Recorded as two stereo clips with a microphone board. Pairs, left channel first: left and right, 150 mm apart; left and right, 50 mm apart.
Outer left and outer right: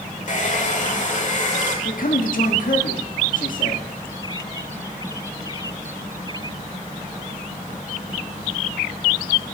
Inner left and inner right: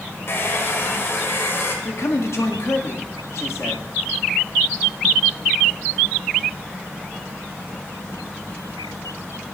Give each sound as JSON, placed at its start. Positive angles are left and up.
{"t": 0.3, "sound": "a hair dryer", "side_deg": 55, "distance_m": 1.2}
{"t": 1.9, "sound": "a man speaking", "side_deg": 65, "distance_m": 1.4}